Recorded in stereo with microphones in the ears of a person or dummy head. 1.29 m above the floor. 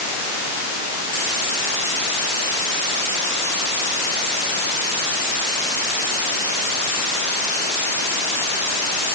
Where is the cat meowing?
No cat meowing in this recording.